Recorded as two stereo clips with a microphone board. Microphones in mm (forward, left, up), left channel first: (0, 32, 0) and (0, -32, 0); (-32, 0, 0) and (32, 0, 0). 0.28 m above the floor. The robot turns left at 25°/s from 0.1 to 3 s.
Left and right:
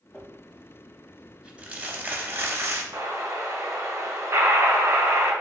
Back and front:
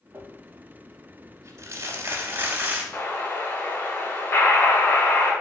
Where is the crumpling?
10° left, 0.7 m; by 2.8 s 55° right, 0.7 m.